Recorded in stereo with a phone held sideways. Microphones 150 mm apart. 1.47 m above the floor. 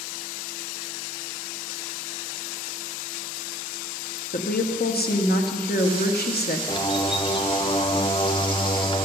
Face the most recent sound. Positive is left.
turn(degrees=30)  # may be behind; listen again after turning